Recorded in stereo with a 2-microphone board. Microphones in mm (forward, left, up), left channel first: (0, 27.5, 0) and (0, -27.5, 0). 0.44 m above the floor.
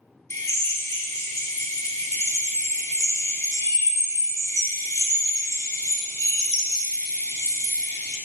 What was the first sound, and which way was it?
A drill, 70° left (ahead or behind).